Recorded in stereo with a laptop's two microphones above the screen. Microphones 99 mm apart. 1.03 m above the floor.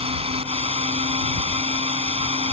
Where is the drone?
85° right.